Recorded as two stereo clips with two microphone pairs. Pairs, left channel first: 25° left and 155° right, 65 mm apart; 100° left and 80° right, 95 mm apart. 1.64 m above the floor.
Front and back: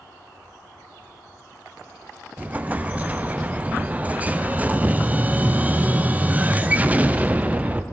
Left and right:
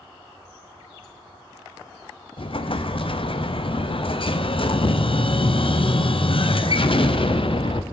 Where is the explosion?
130° left, 0.6 m.